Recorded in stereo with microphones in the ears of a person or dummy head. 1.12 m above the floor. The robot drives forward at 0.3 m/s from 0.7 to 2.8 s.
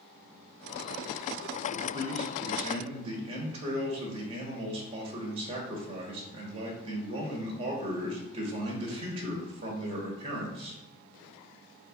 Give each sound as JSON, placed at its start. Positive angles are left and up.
{"t": 1.7, "sound": "a man speaking", "side_deg": -30, "distance_m": 0.9}